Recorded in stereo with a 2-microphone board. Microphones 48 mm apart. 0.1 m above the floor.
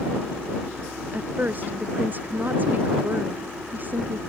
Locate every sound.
1.1 s a woman speaking: 35° right (ahead or behind)